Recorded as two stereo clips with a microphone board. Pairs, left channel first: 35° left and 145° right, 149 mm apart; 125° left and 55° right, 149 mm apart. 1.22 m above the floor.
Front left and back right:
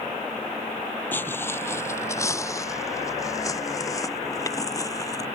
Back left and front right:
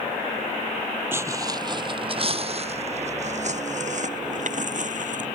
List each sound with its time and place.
1.1 s footsteps: 15° right; by 5.3 s 30° right